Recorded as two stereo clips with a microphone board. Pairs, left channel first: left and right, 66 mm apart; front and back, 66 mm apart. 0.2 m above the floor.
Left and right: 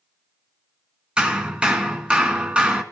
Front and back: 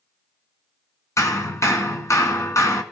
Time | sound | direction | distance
1.2 | hammering | 20° right | 1.9 m